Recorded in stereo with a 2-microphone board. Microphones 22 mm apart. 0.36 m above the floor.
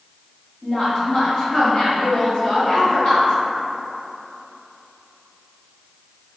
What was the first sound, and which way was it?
A woman speaking, 35° left (ahead or behind).